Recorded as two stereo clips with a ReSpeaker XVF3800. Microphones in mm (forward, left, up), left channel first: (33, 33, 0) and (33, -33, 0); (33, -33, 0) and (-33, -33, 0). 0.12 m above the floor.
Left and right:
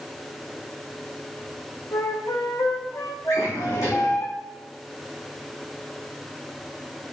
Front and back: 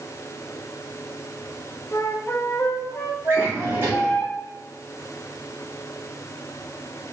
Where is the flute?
50° left, 1.5 m.